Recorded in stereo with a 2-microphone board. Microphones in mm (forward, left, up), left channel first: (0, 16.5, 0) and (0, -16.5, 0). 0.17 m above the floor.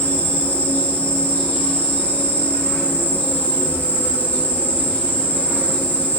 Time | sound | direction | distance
0.0 | an insect | 55° left (ahead or behind) | 1.8 m